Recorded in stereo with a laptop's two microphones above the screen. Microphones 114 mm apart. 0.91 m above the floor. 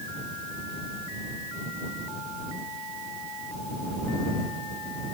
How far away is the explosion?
No explosion in this recording.